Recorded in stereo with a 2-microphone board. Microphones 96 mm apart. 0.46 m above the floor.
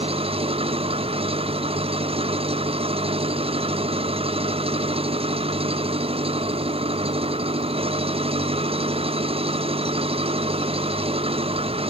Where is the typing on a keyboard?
No typing on a keyboard in this recording.